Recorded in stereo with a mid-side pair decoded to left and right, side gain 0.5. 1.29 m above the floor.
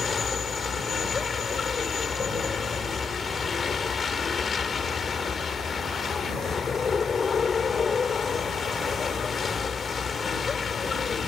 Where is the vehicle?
40° left.